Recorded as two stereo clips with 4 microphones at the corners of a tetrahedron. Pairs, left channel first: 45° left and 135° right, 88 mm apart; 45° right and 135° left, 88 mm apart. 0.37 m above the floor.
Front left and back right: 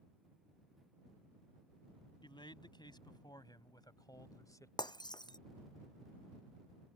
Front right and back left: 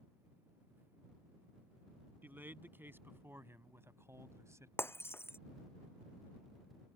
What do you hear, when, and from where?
2.2 s a man speaking: 70° left; by 4.7 s 90° left
4.8 s breaking glass: 15° left